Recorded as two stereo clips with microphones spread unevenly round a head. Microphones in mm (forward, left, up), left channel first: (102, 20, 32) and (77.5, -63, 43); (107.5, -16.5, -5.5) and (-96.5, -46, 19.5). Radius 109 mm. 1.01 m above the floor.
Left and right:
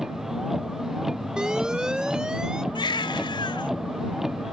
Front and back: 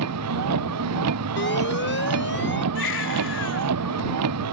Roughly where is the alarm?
Ahead right.